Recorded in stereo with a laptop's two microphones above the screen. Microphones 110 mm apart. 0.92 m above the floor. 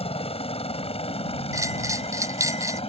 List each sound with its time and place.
0.0 s a helicopter: 65° left (ahead or behind); by 2.9 s 60° left (ahead or behind)
1.5 s a bell: 30° right (ahead or behind)